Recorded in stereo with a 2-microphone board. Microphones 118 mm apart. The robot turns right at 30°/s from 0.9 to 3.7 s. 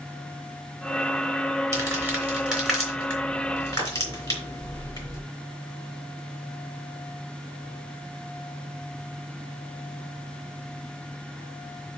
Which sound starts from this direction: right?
Crumpling, at 1.7 s.